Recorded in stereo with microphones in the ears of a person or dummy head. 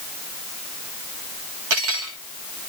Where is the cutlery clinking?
75° right (ahead or behind), 1.7 m.